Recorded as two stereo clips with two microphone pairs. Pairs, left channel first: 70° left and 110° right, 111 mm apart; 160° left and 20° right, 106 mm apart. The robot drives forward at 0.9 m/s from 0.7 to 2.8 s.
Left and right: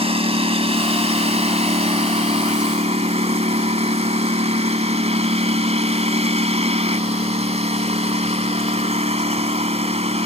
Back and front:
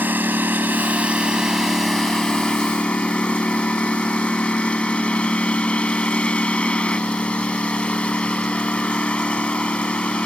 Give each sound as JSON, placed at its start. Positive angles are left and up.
{"t": 0.0, "sound": "a lawn mower", "azimuth_deg": -90}